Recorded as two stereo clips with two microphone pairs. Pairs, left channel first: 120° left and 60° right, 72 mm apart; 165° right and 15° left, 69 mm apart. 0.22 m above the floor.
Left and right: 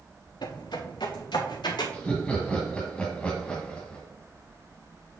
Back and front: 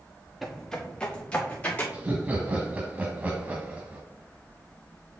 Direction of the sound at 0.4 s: 100° left.